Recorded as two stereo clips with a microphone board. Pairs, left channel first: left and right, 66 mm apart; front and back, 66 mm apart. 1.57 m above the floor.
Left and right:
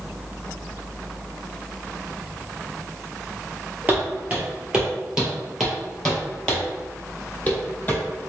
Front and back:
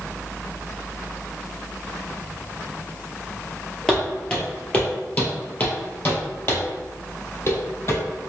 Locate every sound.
3.9 s footsteps: 60° right, 1.7 m; by 8.0 s 30° left, 2.5 m